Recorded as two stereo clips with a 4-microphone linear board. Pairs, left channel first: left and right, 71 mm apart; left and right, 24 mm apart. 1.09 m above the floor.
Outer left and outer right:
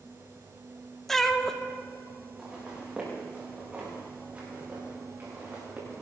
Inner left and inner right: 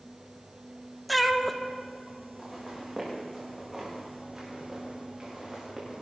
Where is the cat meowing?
5° left (ahead or behind), 0.7 m.